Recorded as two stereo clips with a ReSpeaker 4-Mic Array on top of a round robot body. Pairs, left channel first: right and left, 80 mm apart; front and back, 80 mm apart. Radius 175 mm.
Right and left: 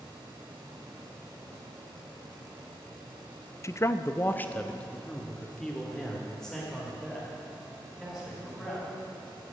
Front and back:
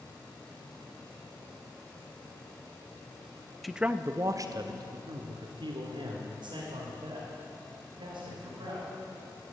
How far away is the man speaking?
About 0.7 m.